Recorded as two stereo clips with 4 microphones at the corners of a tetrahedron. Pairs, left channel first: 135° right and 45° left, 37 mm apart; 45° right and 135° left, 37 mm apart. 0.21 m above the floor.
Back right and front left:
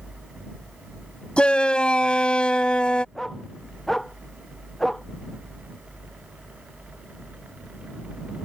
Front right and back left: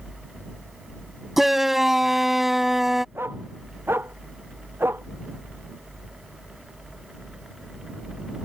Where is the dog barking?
140° left.